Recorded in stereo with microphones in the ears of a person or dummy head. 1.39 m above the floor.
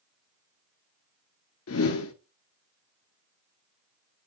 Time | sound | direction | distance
1.7 | a whoosh | 65° left (ahead or behind) | 0.7 m